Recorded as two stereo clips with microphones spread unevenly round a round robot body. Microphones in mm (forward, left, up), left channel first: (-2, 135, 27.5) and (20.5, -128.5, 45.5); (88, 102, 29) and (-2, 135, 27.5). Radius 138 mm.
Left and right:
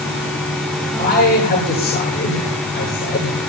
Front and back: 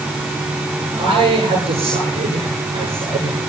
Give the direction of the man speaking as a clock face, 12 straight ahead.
7 o'clock.